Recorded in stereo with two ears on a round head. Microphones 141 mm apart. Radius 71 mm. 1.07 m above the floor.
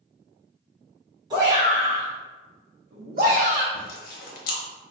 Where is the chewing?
60° left (ahead or behind), 0.7 m.